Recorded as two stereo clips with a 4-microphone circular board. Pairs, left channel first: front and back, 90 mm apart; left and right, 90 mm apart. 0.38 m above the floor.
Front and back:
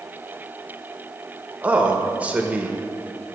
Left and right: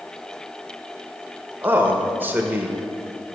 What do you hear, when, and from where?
1.6 s a man speaking: 125° right, 0.9 m